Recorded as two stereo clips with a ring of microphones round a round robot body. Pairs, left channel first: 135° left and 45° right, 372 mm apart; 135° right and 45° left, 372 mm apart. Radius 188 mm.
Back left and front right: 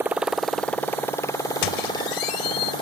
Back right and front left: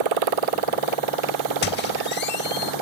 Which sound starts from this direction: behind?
A squeak, at 1.6 s.